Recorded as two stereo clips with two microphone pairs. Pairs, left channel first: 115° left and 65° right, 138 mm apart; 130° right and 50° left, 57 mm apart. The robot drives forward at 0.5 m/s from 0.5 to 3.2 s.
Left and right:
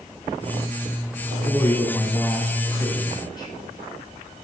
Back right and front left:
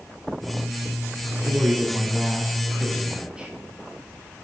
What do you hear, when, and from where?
1.2 s a man speaking: 40° left, 1.7 m; by 3.5 s 105° left, 1.5 m